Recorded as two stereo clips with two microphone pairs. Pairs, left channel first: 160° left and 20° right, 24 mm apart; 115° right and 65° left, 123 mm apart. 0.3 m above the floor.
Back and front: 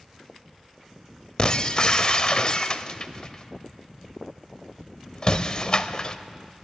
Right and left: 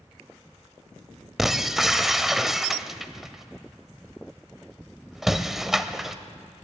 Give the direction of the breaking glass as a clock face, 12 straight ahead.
7 o'clock.